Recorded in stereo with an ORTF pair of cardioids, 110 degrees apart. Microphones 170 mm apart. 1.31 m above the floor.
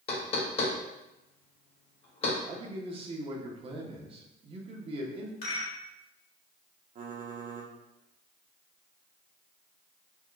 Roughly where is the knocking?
Ahead left.